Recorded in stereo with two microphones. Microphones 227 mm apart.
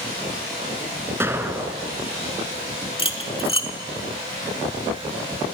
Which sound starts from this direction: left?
Cutlery clinking, at 3.0 s.